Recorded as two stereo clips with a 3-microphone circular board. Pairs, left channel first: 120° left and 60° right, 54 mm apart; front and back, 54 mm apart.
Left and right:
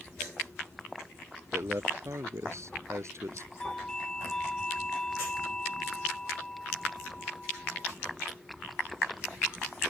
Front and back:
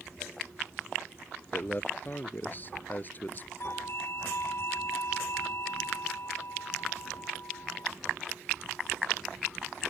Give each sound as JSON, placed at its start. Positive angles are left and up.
{"t": 1.5, "sound": "a man speaking", "azimuth_deg": -50}
{"t": 3.6, "sound": "a doorbell", "azimuth_deg": 40}